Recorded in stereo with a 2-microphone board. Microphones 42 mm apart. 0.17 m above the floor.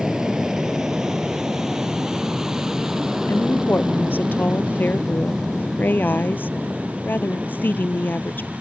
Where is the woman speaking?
50° left (ahead or behind).